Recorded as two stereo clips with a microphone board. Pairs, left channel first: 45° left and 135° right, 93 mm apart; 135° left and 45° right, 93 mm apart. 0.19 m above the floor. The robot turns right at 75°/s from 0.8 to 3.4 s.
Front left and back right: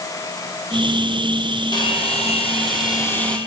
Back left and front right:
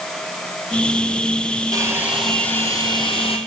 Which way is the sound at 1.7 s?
5° left.